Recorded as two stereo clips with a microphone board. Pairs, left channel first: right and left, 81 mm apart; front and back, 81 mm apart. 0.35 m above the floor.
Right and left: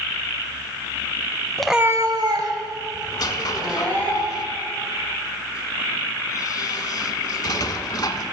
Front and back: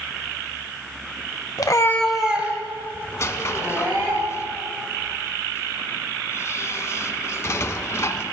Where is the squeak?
55° right, 0.6 m.